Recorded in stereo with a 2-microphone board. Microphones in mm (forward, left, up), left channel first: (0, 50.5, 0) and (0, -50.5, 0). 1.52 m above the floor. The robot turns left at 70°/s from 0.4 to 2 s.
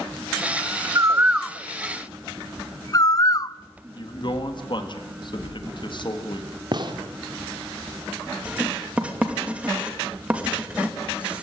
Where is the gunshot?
45° right (ahead or behind), 2 m.